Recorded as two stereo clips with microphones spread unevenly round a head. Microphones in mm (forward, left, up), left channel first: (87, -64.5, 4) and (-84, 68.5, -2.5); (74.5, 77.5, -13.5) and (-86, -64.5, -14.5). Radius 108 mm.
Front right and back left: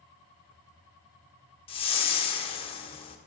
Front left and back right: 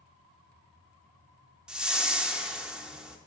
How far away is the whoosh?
About 0.9 m.